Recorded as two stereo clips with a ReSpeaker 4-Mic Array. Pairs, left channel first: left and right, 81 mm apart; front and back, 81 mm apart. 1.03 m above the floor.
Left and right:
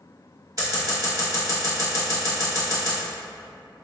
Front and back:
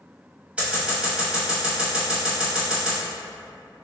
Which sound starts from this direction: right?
Scissors, at 0.6 s.